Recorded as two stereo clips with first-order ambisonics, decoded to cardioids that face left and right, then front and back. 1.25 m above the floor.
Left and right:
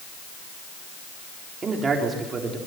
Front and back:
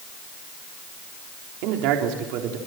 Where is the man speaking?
160° right, 3.5 m.